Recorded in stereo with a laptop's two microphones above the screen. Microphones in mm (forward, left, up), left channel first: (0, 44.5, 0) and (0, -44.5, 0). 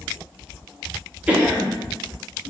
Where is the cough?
15° right (ahead or behind), 0.8 m.